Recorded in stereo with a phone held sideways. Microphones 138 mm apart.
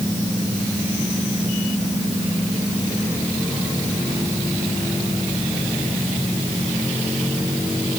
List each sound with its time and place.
Only background noise.